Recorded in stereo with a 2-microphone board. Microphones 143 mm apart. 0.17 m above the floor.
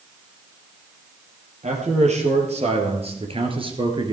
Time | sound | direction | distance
1.6 | a man speaking | 55° right (ahead or behind) | 3.5 m